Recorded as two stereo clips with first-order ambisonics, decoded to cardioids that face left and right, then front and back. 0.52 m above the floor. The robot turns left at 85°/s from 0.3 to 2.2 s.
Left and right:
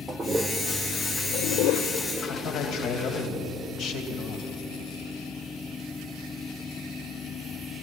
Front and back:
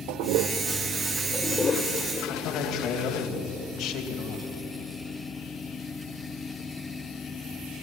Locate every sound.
0.1 s a toilet flushing: 170° right, 1.0 m; by 3.3 s 30° left, 1.0 m
2.3 s a man speaking: 50° left, 3 m